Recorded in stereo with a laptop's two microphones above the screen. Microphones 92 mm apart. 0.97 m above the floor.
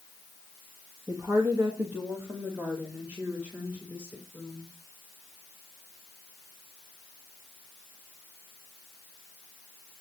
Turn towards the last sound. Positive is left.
turn(degrees=-5)  # may be behind; listen again after turning